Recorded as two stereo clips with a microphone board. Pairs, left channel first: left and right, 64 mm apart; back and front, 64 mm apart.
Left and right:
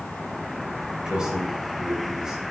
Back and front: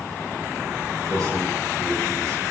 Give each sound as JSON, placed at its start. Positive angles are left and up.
{"t": 1.1, "sound": "a man speaking", "azimuth_deg": -10, "distance_m": 3.5}